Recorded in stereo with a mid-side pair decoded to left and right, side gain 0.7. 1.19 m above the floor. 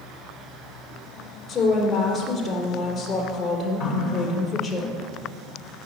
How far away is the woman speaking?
About 3 m.